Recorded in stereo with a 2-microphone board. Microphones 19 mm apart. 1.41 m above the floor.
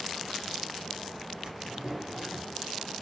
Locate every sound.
1.4 s a drawer: 40° right (ahead or behind), 1.9 m